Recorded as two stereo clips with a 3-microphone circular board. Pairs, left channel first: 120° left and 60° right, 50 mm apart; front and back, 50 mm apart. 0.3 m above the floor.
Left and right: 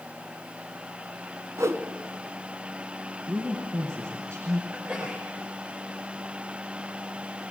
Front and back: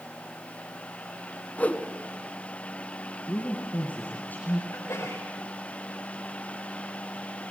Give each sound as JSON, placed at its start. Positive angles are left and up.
{"t": 1.6, "sound": "a whoosh", "azimuth_deg": -60, "distance_m": 1.5}
{"t": 3.3, "sound": "a man speaking", "azimuth_deg": -50, "distance_m": 4.0}
{"t": 4.7, "sound": "a sneeze", "azimuth_deg": -10, "distance_m": 4.5}